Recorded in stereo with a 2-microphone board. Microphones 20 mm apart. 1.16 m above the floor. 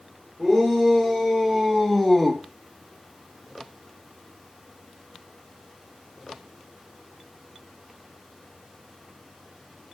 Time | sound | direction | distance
0.4 | a shout | 5° right (ahead or behind) | 4 m